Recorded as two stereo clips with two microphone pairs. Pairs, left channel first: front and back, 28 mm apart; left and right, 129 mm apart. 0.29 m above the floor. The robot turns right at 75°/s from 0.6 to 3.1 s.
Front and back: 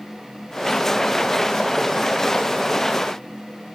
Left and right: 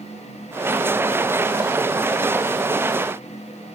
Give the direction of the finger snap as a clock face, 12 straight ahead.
No finger snap in this recording.